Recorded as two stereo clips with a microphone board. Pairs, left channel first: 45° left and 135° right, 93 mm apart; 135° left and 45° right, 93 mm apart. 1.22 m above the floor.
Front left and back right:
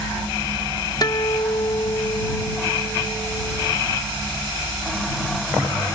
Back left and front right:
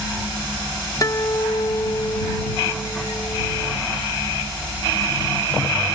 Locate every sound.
1.0 s a guitar: 85° left